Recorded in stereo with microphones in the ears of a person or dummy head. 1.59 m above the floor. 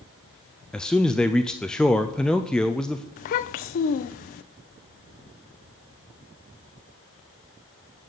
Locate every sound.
0.7 s a man speaking: centre (ahead or behind), 0.7 m
3.2 s a child speaking: 40° left (ahead or behind), 0.6 m